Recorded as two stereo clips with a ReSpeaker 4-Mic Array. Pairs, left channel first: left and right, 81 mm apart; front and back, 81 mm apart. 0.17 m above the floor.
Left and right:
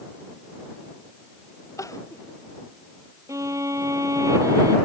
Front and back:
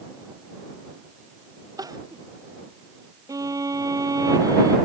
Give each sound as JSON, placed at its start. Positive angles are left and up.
{"t": 1.8, "sound": "crying", "azimuth_deg": 140}
{"t": 3.3, "sound": "a violin", "azimuth_deg": -135}